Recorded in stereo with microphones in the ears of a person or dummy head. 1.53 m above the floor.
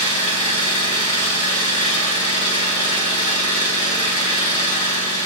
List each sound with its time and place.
0.0 s an engine running: 35° left (ahead or behind), 3.5 m